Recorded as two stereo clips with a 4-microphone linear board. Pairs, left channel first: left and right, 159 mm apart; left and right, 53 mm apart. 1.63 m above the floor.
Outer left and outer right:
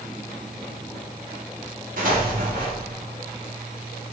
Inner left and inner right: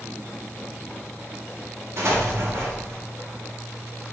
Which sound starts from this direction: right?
An explosion, at 2.0 s.